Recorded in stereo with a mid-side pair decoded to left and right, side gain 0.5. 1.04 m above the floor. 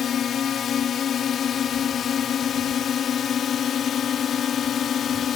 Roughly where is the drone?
Ahead left.